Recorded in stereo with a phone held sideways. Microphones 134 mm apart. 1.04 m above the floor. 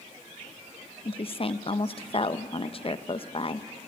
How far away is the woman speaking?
About 0.6 m.